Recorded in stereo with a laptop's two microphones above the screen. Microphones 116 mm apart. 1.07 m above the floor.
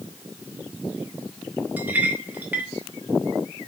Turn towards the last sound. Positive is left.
turn(degrees=-15)  # may be behind; listen again after turning